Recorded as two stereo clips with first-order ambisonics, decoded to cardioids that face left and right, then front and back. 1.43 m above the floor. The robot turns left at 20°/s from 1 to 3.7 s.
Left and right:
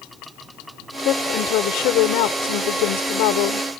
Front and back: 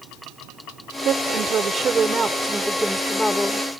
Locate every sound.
1.0 s a woman speaking: 130° left; by 3.7 s 80° left